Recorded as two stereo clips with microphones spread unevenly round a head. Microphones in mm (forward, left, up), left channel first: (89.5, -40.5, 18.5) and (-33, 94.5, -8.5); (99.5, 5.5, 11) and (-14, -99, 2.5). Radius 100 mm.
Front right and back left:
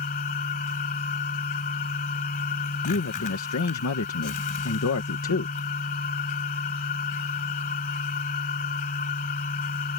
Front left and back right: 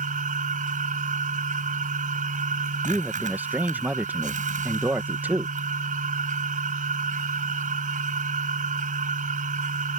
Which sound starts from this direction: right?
A machine running, at 0.0 s.